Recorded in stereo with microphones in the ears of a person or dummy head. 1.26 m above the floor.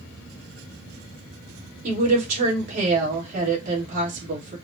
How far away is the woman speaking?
About 2 m.